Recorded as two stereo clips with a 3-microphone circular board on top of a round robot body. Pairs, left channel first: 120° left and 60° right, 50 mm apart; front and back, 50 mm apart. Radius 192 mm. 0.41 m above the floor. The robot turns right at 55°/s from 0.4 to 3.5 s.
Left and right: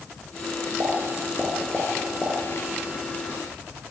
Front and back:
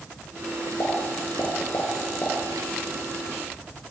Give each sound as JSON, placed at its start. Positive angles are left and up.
{"t": 0.8, "sound": "a pop", "azimuth_deg": -30, "distance_m": 5.0}